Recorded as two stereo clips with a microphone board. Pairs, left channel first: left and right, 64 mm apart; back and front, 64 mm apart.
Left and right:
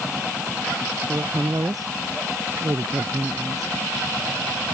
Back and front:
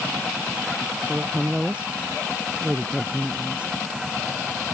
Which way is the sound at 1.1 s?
70° right.